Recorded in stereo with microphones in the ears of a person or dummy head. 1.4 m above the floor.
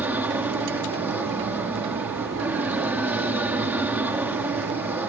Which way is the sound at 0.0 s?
10° right (ahead or behind).